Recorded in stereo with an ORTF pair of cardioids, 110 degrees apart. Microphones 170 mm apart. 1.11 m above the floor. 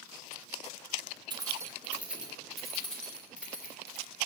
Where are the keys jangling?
25° right, 1.1 m; by 4.1 s 10° left, 3 m.